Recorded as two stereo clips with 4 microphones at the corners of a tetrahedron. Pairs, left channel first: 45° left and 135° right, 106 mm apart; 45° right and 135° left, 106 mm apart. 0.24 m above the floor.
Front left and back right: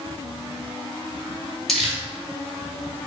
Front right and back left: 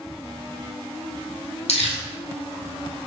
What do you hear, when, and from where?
1.7 s crumpling: 45° right, 1.1 m